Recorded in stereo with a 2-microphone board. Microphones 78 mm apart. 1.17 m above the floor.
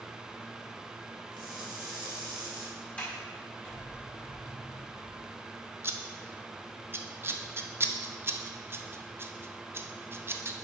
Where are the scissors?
30° right (ahead or behind), 0.5 m.